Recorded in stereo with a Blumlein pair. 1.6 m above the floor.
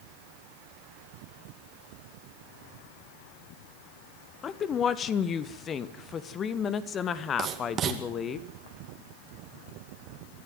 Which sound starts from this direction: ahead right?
Writing, at 7.4 s.